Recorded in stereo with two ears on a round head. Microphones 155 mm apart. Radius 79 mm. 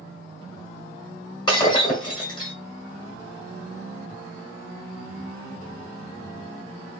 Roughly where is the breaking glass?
Left.